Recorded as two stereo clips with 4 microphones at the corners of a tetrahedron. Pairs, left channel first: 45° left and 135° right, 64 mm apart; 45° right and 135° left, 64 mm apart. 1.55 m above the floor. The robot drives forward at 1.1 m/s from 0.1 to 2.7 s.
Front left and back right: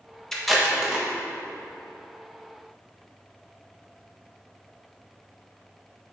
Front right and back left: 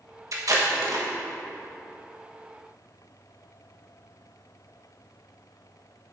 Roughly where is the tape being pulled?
Behind left.